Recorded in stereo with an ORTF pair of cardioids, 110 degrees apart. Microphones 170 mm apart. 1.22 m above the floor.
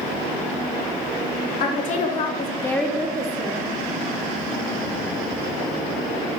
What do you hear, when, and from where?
1.6 s a woman speaking: 60° left, 0.8 m; by 3.6 s 40° right, 0.7 m